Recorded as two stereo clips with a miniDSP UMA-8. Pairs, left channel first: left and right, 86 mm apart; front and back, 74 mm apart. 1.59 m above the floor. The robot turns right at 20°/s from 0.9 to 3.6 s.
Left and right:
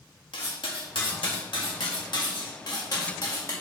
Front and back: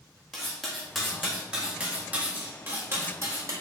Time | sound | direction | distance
0.3 | cutlery clinking | 90° left | 1.8 m